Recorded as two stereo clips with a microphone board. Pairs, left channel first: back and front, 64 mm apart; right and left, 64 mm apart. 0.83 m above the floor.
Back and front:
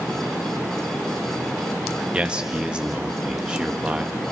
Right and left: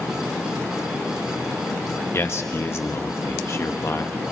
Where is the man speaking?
70° right, 1.1 m.